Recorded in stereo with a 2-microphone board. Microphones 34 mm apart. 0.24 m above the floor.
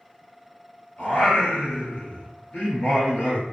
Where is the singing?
75° left (ahead or behind), 1.6 m.